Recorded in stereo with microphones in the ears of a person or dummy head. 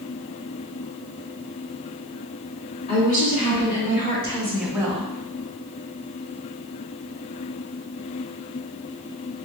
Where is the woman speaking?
40° left (ahead or behind), 1.8 m; by 5.1 s 40° right (ahead or behind), 0.6 m.